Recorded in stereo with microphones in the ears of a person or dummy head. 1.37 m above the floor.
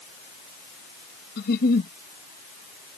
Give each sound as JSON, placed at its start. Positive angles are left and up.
{"t": 1.4, "sound": "a giggle", "side_deg": 55}